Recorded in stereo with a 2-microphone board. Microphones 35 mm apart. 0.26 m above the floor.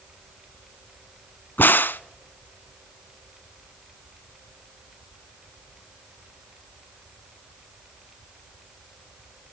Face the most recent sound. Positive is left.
turn(degrees=75)  # may be behind; listen again after turning